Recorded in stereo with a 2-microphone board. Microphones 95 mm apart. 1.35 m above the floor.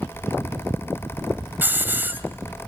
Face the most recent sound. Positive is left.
turn(degrees=-20)  # may be behind; listen again after turning